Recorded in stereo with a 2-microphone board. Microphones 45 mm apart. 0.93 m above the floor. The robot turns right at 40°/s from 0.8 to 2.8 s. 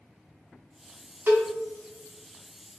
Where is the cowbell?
50° right (ahead or behind), 1.1 m; by 1.5 s 60° right (ahead or behind), 1.1 m.